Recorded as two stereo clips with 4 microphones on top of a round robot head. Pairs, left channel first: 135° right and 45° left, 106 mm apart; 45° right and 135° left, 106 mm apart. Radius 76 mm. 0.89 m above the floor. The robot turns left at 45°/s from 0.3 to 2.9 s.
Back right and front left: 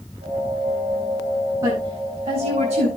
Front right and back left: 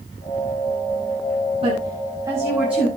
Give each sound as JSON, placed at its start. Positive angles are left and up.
{"t": 1.6, "sound": "a woman speaking", "azimuth_deg": 105, "distance_m": 8.0}